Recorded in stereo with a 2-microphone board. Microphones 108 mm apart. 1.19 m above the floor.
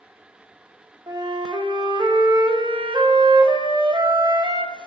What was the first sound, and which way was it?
A flute, 45° right (ahead or behind).